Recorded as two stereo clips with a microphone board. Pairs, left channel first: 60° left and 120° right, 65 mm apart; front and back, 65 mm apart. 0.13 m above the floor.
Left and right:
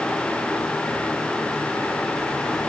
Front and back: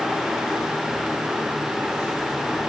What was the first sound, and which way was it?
Only background noise.